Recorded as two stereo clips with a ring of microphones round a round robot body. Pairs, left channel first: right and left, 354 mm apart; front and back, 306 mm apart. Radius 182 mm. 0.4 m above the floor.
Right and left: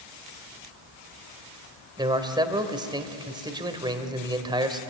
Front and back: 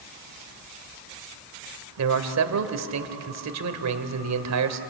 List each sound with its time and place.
2.0 s a man speaking: 165° left, 2 m